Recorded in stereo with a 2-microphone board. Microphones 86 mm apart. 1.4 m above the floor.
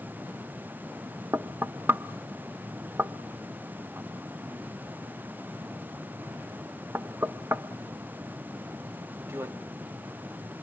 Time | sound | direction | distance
1.3 | knocking | 30° right (ahead or behind) | 0.6 m